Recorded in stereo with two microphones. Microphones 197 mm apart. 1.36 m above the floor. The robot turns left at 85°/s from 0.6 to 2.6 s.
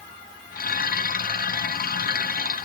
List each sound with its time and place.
Only background noise.